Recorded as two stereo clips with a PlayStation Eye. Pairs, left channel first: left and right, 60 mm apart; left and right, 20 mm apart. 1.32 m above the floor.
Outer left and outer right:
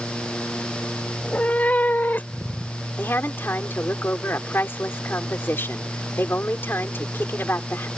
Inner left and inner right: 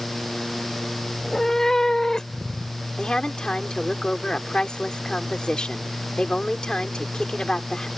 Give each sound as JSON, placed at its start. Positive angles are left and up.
{"t": 1.2, "sound": "a cat meowing", "side_deg": 25}
{"t": 3.0, "sound": "a woman speaking", "side_deg": 40}